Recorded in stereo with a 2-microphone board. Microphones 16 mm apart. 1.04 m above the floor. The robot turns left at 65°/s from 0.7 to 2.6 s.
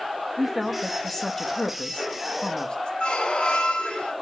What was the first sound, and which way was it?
A woman speaking, 10° right (ahead or behind).